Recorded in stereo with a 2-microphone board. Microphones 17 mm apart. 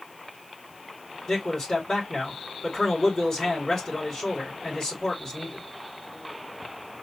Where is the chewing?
I don't hear chewing.